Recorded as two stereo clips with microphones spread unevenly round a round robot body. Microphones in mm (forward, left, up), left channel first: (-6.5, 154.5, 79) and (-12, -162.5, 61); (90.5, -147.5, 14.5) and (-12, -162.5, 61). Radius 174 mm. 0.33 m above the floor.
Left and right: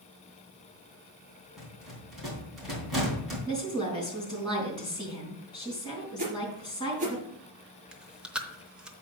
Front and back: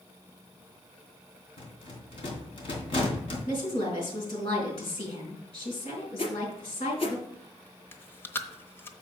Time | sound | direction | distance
1.6 | a rattle | straight ahead | 3 m
3.5 | a woman speaking | 10° left | 3.5 m
6.2 | a whoosh | 25° right | 2.5 m
7.9 | chewing | 10° right | 0.8 m